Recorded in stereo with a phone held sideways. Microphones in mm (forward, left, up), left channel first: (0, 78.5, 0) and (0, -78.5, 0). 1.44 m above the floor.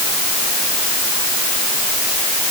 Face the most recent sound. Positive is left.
No sound to turn to.